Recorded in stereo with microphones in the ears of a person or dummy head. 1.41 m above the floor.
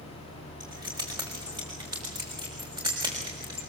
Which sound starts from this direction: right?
Keys jangling, at 0.6 s.